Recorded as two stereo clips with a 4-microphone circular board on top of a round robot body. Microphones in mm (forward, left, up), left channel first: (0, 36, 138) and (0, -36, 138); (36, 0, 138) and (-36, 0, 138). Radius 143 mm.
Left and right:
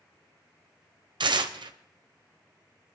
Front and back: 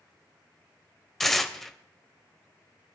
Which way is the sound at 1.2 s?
85° right.